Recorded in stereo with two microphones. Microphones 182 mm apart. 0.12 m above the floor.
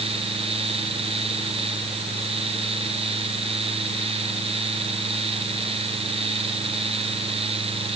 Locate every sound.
Only background noise.